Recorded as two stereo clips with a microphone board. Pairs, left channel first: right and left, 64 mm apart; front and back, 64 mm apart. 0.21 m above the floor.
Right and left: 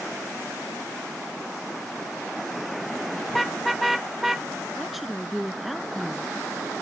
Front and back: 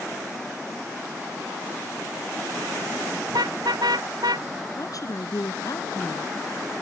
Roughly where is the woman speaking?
Ahead.